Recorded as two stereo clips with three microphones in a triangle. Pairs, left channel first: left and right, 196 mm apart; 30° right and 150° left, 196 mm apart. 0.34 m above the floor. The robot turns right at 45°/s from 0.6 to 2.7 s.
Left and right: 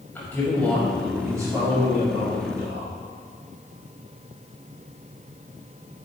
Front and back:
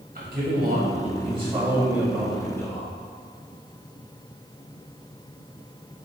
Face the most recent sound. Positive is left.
turn(degrees=-100)